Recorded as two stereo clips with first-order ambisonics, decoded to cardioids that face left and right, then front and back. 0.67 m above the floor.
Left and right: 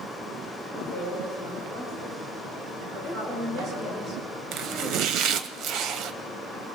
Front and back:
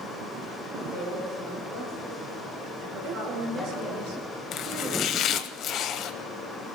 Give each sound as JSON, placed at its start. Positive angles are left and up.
{"t": 0.7, "sound": "a woman speaking", "azimuth_deg": -130, "distance_m": 9.5}
{"t": 3.0, "sound": "a woman speaking", "azimuth_deg": -155, "distance_m": 2.0}
{"t": 4.5, "sound": "chopping", "azimuth_deg": -50, "distance_m": 0.8}